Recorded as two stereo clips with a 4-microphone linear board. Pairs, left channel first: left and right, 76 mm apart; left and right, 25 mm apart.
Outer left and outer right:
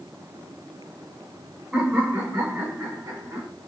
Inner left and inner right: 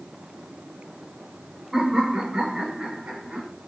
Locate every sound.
1.7 s laughter: 5° right (ahead or behind), 1.3 m; by 3.5 s 55° right (ahead or behind), 2.5 m